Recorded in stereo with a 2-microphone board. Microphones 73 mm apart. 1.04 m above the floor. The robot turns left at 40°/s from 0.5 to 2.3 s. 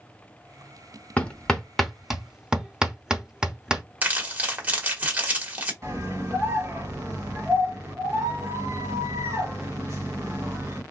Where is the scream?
45° right (ahead or behind), 1.7 m.